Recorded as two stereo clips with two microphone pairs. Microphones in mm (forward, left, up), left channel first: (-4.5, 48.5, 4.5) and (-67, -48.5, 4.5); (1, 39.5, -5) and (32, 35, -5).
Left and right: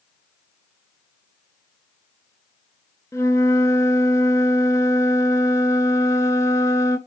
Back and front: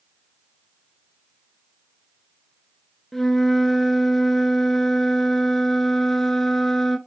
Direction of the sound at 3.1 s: 95° left.